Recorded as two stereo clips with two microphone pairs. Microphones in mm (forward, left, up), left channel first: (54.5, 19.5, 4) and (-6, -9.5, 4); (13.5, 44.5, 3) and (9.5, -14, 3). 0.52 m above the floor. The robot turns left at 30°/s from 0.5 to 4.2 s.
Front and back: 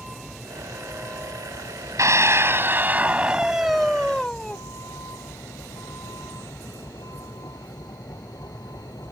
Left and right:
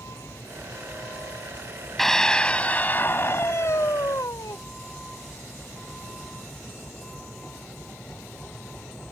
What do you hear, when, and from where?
0.0 s a vehicle: 120° left; by 9.1 s 10° left
2.0 s a scream: 170° left; by 4.6 s 105° left